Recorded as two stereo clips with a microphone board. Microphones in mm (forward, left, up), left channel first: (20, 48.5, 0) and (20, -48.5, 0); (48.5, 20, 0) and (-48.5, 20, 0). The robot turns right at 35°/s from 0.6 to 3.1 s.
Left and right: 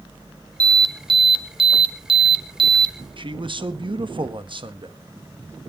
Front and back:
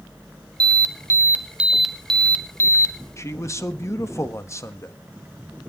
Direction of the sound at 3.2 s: 60° right.